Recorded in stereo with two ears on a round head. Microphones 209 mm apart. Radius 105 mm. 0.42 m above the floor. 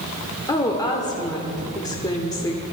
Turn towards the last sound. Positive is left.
turn(degrees=15)  # may be behind; listen again after turning